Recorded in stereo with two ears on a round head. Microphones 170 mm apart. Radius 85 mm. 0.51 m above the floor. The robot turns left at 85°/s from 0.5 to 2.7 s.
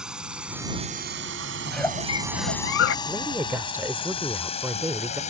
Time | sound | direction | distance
0.0 | a drone | 5° right (ahead or behind) | ?
1.6 | a giggle | 175° right | ?
3.0 | a woman speaking | 10° right (ahead or behind) | ?